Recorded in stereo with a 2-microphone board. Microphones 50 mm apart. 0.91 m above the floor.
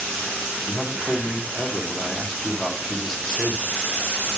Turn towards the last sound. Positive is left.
turn(degrees=5)  # may be behind; listen again after turning